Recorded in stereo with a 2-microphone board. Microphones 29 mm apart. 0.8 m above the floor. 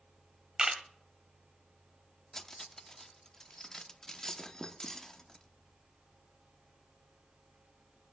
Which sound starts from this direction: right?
A camera shutter, at 0.6 s.